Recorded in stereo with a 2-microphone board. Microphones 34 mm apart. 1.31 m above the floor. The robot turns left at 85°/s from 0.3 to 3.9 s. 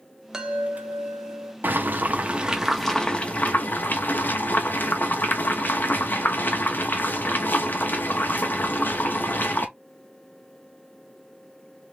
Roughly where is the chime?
Ahead.